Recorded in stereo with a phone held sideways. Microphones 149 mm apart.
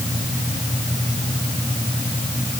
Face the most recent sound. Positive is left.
No sound to turn to.